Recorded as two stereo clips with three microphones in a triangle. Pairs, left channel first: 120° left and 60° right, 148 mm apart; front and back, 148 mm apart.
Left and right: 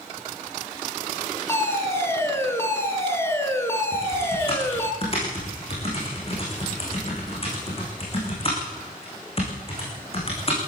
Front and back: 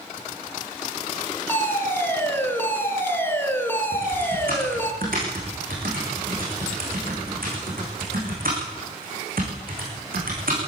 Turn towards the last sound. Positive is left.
turn(degrees=170)